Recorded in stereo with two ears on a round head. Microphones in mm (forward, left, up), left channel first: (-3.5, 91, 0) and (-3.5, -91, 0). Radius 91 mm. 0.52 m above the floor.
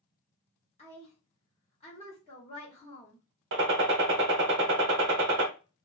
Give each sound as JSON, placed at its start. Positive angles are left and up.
{"t": 0.8, "sound": "a woman speaking", "side_deg": 30, "distance_m": 1.1}
{"t": 3.5, "sound": "a gunshot", "side_deg": -55, "distance_m": 0.7}